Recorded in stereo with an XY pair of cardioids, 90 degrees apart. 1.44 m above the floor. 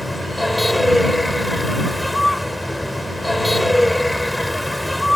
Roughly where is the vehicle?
Ahead.